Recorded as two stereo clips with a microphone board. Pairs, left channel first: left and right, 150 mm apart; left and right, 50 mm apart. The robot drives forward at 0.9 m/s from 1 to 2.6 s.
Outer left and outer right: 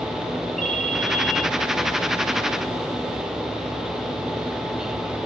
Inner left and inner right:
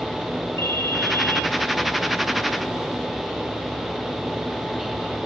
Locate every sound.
0.6 s a ringtone: 70° left (ahead or behind), 1.7 m; by 1.5 s 60° left (ahead or behind), 1.8 m